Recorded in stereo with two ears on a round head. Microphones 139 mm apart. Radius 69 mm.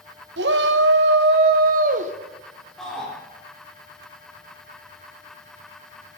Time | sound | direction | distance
0.4 | a shout | 80° right | 1.3 m
2.8 | a shout | centre (ahead or behind) | 5 m